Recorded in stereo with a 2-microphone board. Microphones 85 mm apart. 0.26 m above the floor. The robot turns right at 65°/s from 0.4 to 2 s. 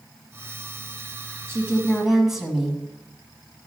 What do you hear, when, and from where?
1.5 s a woman speaking: 40° right, 2 m; by 2.8 s 5° right, 2 m